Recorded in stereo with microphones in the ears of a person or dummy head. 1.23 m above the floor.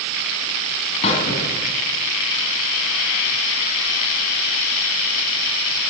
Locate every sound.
1.0 s a squeak: 35° left (ahead or behind), 2.5 m